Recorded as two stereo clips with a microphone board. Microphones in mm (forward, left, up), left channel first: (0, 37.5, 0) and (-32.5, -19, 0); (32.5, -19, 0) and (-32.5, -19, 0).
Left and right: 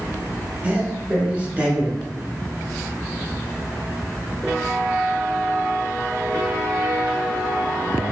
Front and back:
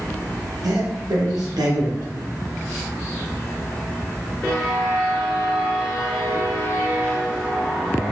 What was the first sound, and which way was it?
A man speaking, 170° left.